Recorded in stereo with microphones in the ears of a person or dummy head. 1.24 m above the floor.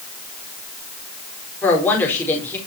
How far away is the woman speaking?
About 4 m.